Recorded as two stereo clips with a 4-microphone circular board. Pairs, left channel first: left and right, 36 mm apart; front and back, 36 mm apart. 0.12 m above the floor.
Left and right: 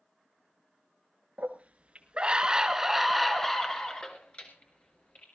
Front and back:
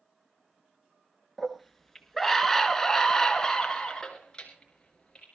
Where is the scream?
90° right, 2 m; by 5.2 s 65° left, 2.5 m.